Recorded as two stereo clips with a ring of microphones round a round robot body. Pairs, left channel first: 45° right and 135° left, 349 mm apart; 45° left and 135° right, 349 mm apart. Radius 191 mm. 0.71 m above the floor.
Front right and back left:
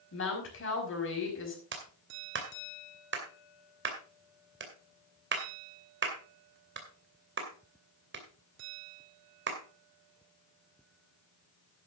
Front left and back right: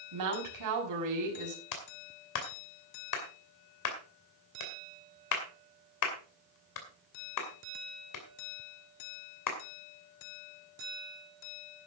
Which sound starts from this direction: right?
A woman speaking, at 0.1 s.